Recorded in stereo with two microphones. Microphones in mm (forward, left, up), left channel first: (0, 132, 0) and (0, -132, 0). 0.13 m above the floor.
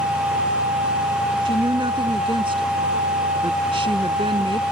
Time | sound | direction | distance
1.4 | a woman speaking | 20° right (ahead or behind) | ?